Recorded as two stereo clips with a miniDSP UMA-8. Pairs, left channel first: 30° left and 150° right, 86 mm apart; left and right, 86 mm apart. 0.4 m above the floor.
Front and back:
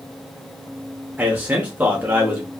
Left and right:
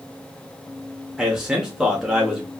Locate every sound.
1.2 s a man speaking: 170° right, 0.8 m